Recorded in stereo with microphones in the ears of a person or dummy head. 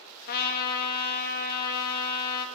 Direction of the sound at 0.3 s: 50° left (ahead or behind).